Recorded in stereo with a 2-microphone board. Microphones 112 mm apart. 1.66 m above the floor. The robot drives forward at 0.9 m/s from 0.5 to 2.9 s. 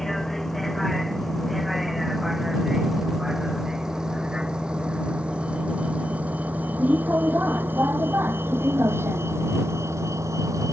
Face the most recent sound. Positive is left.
turn(degrees=-30)  # may be behind; listen again after turning